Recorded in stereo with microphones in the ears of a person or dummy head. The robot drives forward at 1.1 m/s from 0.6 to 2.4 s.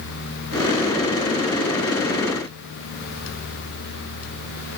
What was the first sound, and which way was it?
Only background noise.